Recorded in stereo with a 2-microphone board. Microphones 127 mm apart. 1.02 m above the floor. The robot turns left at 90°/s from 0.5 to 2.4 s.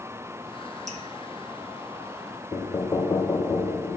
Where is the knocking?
30° left (ahead or behind), 0.6 m.